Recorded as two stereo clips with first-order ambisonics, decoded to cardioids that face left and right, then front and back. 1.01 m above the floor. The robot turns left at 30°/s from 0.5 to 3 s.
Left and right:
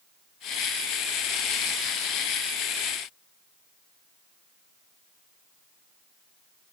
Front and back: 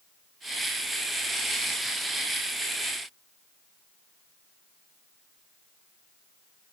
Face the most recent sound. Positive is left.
No sound to turn to.